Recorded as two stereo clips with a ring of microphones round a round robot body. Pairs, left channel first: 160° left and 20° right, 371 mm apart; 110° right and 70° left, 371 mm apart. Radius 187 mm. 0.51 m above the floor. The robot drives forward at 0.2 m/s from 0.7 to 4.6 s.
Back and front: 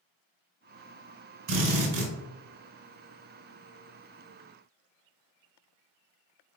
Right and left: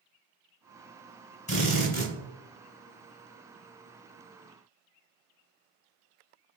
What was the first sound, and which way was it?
A drill, 40° right.